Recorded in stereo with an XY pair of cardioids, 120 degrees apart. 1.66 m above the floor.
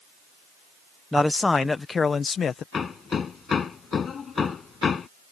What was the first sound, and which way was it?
A man speaking, 5° left.